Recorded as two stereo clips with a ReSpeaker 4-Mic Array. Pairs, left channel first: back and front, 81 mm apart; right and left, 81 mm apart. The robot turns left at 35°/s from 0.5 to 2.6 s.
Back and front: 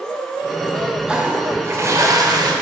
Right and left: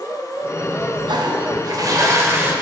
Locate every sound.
1.1 s a toilet flushing: 75° left, 0.9 m; by 2.5 s 25° left, 0.9 m